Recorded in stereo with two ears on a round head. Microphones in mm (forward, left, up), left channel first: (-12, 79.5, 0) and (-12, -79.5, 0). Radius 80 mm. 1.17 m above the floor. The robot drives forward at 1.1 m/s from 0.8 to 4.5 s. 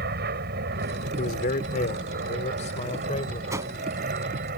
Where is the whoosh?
20° right (ahead or behind); by 3.7 s 15° right (ahead or behind).